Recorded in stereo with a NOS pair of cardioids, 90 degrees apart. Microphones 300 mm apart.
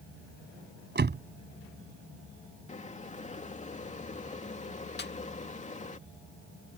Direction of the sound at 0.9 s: 30° right.